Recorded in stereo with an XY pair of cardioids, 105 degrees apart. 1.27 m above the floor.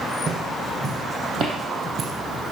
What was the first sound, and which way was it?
Footsteps, 50° right.